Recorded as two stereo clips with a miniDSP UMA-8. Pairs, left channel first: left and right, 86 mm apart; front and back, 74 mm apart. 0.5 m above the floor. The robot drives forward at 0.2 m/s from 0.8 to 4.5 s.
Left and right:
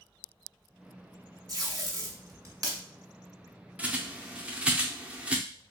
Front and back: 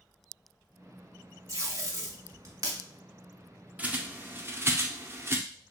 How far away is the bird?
About 0.5 m.